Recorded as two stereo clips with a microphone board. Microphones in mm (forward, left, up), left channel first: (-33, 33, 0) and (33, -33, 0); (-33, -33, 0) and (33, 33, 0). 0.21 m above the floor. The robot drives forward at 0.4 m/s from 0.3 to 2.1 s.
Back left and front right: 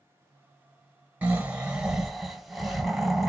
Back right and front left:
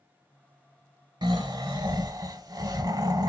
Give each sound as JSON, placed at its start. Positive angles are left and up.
{"t": 1.2, "sound": "snoring", "azimuth_deg": 25, "distance_m": 0.9}